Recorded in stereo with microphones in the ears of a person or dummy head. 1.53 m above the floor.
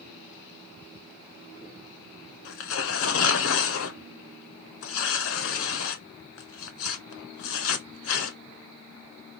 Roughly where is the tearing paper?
Left.